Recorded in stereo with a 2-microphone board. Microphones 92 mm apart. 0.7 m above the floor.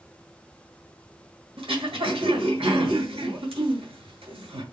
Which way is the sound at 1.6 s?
80° right.